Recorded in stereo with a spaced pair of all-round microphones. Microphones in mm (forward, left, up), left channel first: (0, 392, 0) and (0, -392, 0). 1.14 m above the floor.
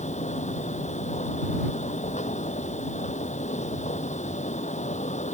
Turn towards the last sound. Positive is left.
turn(degrees=10)  # may be behind; listen again after turning